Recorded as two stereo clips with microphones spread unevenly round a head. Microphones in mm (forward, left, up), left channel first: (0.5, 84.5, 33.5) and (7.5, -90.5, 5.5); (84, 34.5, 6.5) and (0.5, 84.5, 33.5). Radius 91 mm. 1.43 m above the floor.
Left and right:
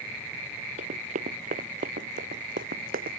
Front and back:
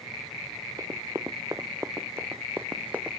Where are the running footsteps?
140° right; by 3.2 s 130° right.